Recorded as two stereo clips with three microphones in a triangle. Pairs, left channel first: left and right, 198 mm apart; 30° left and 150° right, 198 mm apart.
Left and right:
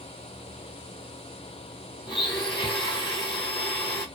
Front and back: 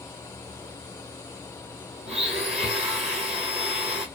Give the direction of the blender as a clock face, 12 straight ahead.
7 o'clock.